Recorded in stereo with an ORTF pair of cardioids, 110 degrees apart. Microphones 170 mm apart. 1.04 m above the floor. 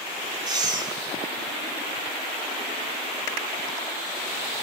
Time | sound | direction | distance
0.5 | breathing | 25° right | 1.9 m